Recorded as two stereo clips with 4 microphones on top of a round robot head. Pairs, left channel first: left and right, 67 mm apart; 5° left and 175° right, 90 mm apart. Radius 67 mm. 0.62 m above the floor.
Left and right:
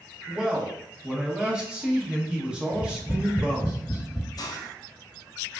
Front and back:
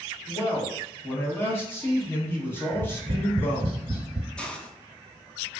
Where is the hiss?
85° left, 0.5 m.